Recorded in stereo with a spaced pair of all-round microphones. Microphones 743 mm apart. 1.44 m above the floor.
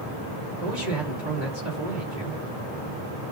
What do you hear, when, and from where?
0.6 s a man speaking: 75° right (ahead or behind), 5 m